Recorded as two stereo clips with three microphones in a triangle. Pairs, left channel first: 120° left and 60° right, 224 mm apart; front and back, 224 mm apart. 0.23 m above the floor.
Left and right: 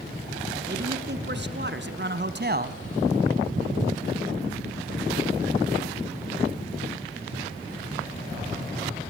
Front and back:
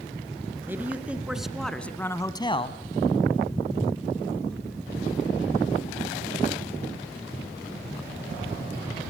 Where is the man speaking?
100° right, 3 m; by 2.8 s 40° right, 1.4 m.